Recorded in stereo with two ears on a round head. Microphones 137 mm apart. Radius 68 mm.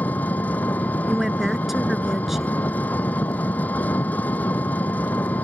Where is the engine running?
10° left (ahead or behind).